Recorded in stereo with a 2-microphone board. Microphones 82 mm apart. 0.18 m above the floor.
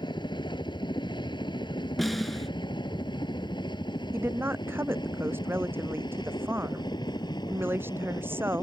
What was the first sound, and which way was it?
A helicopter, 65° left (ahead or behind).